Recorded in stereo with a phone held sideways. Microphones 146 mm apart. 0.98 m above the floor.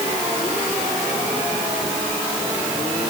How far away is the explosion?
No explosion in this recording.